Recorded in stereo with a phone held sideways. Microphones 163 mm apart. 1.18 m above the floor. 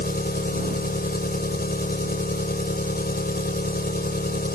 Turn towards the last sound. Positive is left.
turn(degrees=65)  # may be behind; listen again after turning